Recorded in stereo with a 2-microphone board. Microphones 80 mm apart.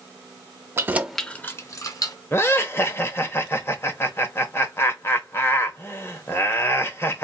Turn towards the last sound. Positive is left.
turn(degrees=30)  # may be behind; listen again after turning